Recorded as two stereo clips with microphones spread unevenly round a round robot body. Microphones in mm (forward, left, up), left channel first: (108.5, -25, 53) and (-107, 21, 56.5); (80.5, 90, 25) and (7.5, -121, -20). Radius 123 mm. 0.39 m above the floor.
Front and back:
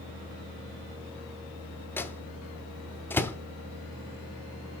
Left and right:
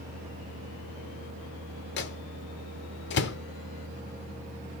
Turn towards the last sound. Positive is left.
turn(degrees=60)